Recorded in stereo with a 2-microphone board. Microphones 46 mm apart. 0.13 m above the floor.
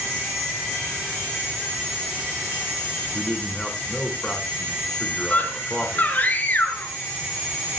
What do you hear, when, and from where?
3.1 s a man speaking: 15° left (ahead or behind), 5.5 m
5.3 s a scream: 35° left (ahead or behind), 1.6 m